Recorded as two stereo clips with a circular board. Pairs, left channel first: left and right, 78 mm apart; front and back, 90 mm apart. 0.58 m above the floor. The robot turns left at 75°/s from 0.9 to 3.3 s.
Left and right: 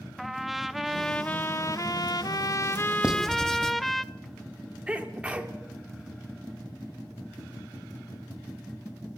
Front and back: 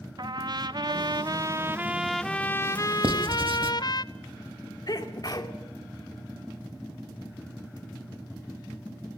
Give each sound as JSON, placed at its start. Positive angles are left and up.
{"t": 0.2, "sound": "a trumpet", "azimuth_deg": -175, "distance_m": 0.6}
{"t": 3.0, "sound": "writing", "azimuth_deg": -165, "distance_m": 1.6}
{"t": 4.9, "sound": "a sneeze", "azimuth_deg": -20, "distance_m": 1.9}